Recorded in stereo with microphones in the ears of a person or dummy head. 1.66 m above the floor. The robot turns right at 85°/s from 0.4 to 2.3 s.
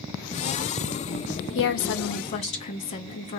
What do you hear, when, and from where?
1.6 s a woman speaking: 80° left, 0.5 m; by 3.4 s 140° left, 0.5 m